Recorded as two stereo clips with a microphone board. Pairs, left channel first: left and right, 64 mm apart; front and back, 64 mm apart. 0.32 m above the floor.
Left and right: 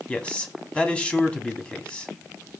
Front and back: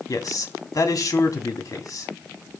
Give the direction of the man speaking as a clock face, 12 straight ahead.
11 o'clock.